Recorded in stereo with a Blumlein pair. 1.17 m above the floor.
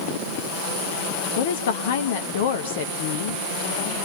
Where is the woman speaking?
55° left, 1.2 m.